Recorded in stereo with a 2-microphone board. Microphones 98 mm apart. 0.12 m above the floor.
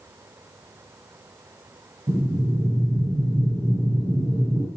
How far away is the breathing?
About 2.5 m.